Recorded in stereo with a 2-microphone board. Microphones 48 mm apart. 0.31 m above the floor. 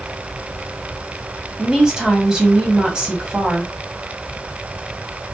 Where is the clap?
No clap in this recording.